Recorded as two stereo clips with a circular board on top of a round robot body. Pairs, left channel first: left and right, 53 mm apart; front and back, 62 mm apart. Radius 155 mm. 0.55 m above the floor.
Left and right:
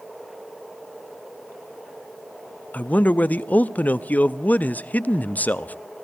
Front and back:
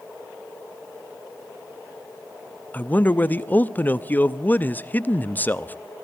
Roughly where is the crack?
I don't hear a crack.